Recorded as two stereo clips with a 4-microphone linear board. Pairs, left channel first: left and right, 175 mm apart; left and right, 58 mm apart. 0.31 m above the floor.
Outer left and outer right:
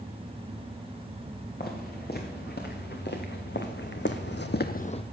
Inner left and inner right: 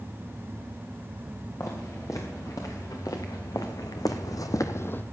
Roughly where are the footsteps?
Left.